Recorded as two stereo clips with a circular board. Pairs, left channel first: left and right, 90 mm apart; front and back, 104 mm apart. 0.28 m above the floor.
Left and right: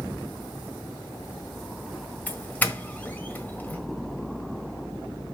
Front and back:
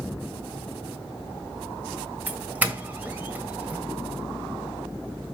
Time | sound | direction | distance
2.3 | a doorbell | 130° left | 1.5 m